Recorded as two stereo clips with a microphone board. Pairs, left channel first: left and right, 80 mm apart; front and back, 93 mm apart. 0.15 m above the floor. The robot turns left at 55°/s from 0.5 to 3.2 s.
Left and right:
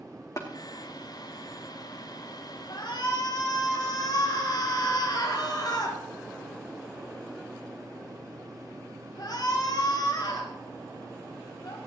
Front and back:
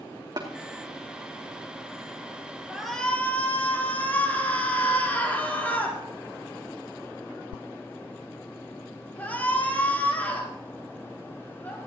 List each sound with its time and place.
0.4 s tapping: 140° left, 2.5 m
2.7 s a shout: 100° left, 4.5 m; by 11.8 s 70° left, 4.5 m